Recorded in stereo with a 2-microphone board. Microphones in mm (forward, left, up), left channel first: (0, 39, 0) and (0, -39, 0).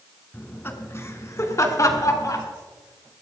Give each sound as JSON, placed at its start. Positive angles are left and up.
{"t": 0.3, "sound": "laughter", "side_deg": 25, "distance_m": 2.0}